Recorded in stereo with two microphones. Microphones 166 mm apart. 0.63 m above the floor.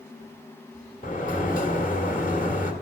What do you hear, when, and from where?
1.0 s a sliding door: 55° left (ahead or behind), 2 m